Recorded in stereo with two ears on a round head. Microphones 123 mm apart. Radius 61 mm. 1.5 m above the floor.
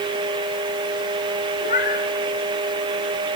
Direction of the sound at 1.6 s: 60° left (ahead or behind).